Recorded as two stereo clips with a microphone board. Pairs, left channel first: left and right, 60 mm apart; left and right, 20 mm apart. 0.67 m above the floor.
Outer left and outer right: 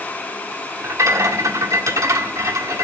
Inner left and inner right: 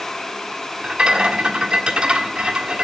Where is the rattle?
65° right (ahead or behind), 1.4 m.